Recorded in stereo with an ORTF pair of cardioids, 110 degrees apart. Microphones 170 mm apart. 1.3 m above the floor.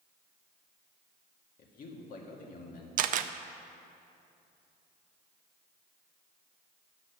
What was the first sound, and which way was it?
A man speaking, 55° left.